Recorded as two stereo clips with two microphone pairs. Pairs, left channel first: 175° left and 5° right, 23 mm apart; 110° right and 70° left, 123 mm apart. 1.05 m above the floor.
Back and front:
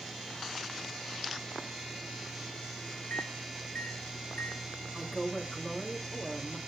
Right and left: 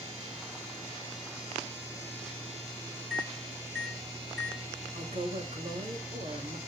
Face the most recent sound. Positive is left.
turn(degrees=70)